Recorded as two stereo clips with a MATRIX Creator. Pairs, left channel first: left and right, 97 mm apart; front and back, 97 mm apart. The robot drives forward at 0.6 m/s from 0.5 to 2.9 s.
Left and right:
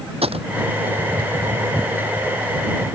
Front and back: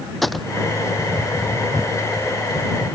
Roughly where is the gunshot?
Right.